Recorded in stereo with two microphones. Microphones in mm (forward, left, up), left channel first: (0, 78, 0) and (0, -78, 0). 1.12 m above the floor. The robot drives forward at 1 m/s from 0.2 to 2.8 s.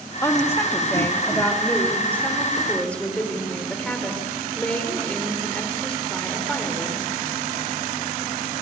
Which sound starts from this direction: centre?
A woman speaking, at 0.2 s.